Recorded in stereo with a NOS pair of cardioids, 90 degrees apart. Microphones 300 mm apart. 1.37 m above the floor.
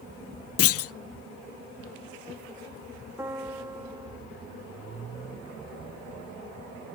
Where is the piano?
10° right, 1.2 m.